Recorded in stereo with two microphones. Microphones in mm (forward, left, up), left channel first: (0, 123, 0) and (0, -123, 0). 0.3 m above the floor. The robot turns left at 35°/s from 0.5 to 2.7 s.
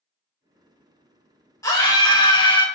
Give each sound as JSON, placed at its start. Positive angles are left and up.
{"t": 1.6, "sound": "a scream", "side_deg": 10, "distance_m": 1.0}